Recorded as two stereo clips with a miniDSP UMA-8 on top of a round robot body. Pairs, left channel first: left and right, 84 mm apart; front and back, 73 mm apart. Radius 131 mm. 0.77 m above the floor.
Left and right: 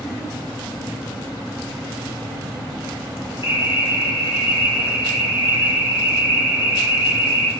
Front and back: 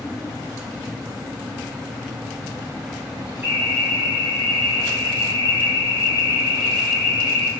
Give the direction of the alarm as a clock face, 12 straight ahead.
8 o'clock.